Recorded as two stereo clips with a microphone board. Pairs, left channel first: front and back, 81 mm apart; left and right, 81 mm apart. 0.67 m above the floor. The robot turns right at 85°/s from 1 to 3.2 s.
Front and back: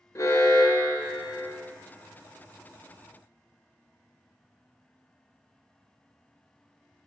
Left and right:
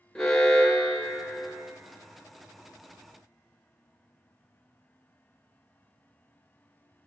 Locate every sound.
0.1 s an alarm: 10° left, 0.6 m; by 1.5 s 55° left, 0.6 m